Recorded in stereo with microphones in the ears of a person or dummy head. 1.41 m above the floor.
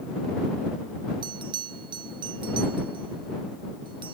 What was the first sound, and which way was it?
A bell, 30° right (ahead or behind).